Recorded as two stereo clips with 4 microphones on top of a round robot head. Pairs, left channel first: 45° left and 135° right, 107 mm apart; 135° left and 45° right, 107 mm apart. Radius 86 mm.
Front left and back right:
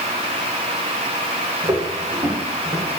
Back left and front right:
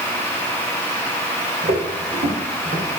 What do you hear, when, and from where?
1.6 s footsteps: 80° right, 4.5 m; by 2.9 s 65° right, 5.5 m